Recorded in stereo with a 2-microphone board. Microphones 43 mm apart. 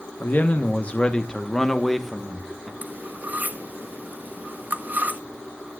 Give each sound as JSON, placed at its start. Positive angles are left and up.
{"t": 0.2, "sound": "a man speaking", "side_deg": 45, "distance_m": 1.4}
{"t": 2.8, "sound": "cutlery clinking", "side_deg": -40, "distance_m": 1.5}